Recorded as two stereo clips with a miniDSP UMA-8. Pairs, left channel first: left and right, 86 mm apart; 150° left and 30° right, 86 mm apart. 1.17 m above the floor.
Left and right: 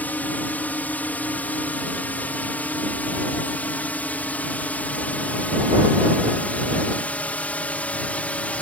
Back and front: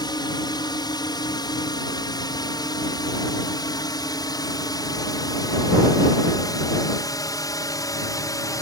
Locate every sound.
0.0 s a drone: 155° left